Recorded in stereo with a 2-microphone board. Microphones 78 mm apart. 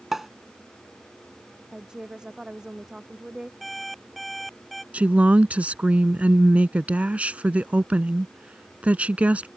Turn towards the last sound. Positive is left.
turn(degrees=-20)  # may be behind; listen again after turning